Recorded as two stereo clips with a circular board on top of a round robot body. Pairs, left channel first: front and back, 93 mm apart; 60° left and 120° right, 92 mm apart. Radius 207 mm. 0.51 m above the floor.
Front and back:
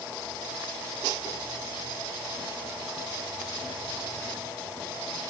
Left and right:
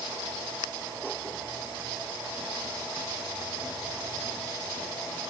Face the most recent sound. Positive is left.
No sound to turn to.